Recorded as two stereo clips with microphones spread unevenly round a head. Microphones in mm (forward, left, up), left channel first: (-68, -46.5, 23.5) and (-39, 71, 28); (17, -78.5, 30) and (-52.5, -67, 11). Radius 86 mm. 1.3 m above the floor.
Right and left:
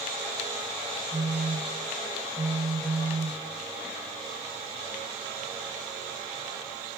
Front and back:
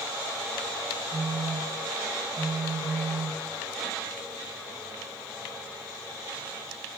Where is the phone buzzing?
150° left, 1.7 m.